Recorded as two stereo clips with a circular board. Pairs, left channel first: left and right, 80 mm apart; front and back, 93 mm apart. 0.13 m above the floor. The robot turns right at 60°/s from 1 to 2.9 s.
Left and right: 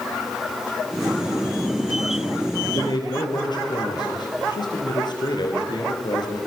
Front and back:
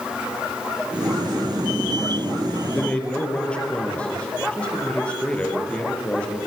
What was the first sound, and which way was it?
A man speaking, 70° left.